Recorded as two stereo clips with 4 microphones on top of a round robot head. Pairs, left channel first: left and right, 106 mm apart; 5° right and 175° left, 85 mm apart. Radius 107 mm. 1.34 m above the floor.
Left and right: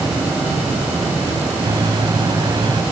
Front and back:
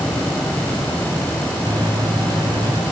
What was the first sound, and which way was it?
A microwave, 140° right.